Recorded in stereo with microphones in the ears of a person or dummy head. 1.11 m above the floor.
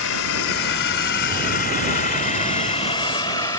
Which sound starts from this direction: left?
A drone, at 0.0 s.